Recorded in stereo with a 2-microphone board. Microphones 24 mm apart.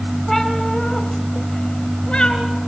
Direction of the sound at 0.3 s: 10° left (ahead or behind).